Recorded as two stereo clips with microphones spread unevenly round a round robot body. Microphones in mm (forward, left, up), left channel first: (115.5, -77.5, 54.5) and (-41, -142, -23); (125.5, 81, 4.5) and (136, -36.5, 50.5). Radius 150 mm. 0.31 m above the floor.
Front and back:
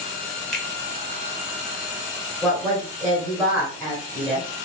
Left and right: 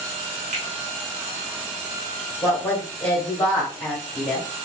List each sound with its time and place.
0.5 s a finger snap: 90° right, 1.2 m
2.4 s a woman speaking: 140° left, 1.4 m